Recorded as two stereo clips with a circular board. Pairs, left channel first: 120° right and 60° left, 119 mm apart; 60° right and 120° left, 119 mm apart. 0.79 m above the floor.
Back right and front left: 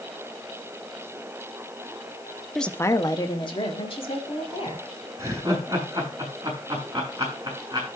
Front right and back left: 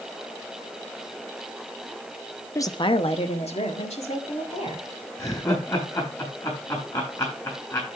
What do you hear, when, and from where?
2.5 s a woman speaking: 30° right, 0.6 m; by 4.9 s 85° right, 3 m
5.2 s laughter: straight ahead, 7.5 m